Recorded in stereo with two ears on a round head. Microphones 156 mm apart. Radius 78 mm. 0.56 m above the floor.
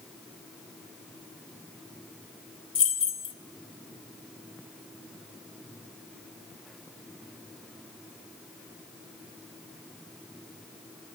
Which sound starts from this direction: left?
Keys jangling, at 2.8 s.